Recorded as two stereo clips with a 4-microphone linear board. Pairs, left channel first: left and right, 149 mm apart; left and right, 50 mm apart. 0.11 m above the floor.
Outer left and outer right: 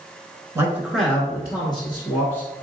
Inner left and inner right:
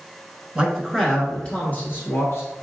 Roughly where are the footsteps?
I don't hear footsteps.